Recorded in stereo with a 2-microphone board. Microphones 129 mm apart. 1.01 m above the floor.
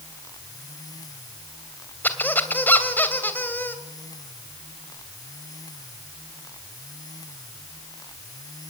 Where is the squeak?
15° left (ahead or behind), 2.5 m.